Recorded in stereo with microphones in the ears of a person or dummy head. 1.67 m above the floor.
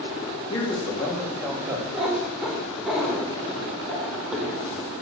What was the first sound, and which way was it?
A man speaking, 25° left (ahead or behind).